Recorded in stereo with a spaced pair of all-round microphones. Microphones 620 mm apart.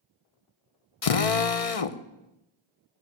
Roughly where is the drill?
Left.